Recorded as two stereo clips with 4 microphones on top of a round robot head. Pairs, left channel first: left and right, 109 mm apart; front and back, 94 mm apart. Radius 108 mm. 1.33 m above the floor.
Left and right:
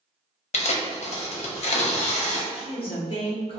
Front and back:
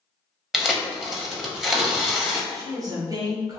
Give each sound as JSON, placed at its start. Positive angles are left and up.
{"t": 0.5, "sound": "tearing paper", "azimuth_deg": 95, "distance_m": 0.8}
{"t": 2.5, "sound": "a woman speaking", "azimuth_deg": 130, "distance_m": 1.0}